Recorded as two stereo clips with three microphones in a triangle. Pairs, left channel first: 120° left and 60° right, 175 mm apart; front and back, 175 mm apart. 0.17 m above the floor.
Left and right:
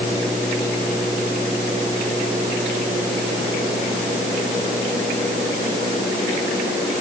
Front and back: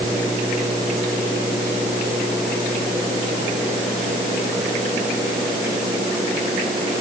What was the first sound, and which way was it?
Only background noise.